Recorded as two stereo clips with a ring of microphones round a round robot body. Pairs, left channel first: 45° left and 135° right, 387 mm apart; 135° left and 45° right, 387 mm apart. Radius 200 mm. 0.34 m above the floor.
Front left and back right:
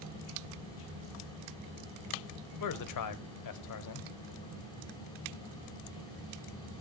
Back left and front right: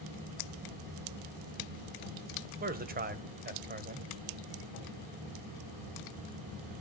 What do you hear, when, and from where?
2.6 s a man speaking: 20° left, 1.4 m